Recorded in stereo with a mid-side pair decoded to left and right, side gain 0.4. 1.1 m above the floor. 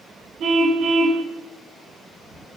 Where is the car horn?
65° right, 4.5 m.